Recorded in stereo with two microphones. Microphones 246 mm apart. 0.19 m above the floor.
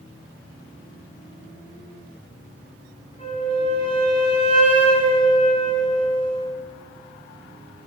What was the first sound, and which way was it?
A flute, 25° left (ahead or behind).